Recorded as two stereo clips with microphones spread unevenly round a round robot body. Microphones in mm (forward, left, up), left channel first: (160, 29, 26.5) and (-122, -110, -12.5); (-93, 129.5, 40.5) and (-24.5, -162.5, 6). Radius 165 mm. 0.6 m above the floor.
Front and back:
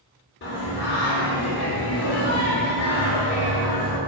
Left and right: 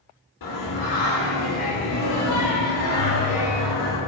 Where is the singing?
85° left, 2.5 m.